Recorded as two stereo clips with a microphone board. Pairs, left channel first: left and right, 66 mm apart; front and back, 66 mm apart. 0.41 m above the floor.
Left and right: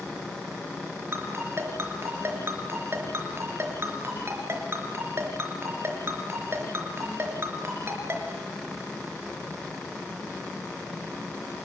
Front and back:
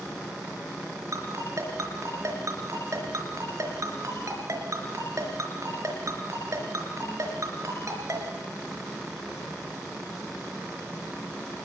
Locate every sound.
1.1 s a ringtone: 140° right, 4 m